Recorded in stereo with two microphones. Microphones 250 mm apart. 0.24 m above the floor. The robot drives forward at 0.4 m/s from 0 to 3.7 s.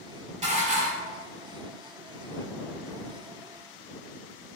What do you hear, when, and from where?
0.4 s dishes clattering: 25° right (ahead or behind), 0.7 m; by 1.2 s 30° right (ahead or behind), 0.7 m